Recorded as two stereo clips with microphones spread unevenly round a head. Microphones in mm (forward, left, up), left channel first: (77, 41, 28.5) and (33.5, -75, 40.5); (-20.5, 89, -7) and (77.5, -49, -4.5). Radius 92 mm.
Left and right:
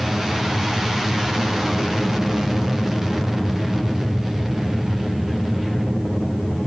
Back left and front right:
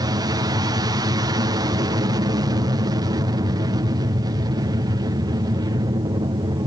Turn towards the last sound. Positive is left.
turn(degrees=-15)